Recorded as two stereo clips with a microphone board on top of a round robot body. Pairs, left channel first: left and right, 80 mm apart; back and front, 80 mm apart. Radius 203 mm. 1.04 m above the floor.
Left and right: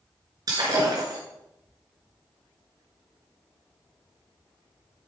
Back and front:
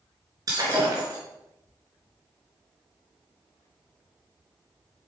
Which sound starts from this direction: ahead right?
Breaking glass, at 0.5 s.